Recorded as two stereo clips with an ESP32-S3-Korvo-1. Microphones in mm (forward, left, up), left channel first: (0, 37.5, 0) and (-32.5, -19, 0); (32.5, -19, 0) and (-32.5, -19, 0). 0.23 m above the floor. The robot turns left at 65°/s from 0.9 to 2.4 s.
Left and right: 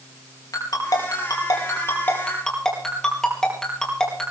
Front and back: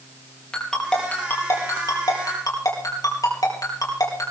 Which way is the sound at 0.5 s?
75° left.